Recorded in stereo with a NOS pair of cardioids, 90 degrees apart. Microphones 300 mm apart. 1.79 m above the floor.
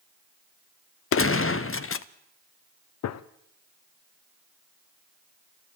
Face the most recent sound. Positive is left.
turn(degrees=60)